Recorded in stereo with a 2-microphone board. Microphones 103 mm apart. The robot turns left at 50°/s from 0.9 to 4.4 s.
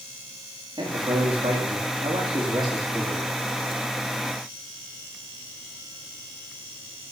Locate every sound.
0.8 s a man speaking: 45° right, 3 m; by 3.3 s 165° right, 3 m